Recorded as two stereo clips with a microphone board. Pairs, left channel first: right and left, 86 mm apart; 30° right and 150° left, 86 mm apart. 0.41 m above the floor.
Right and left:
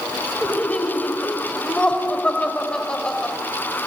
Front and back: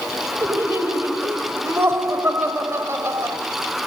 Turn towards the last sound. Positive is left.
turn(degrees=-165)